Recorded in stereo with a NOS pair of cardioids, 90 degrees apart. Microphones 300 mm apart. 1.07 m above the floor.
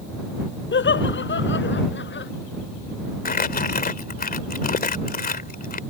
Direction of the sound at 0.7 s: 40° left.